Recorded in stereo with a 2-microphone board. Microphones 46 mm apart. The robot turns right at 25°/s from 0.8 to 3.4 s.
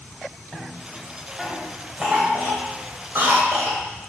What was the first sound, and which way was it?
A cough, 10° left (ahead or behind).